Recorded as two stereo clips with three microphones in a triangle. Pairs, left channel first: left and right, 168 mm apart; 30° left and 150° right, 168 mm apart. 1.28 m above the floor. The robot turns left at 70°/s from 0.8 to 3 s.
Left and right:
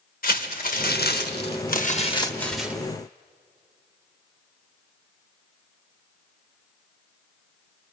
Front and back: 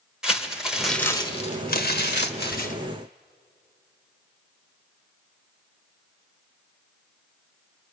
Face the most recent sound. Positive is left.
turn(degrees=-30)